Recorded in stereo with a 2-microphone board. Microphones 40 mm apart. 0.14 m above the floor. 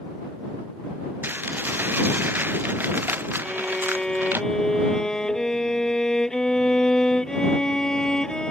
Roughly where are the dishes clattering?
Right.